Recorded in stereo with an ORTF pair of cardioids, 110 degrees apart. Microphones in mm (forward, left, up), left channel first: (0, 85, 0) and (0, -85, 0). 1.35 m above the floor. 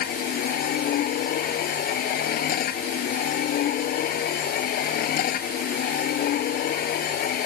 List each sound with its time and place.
0.0 s a machine running: 65° left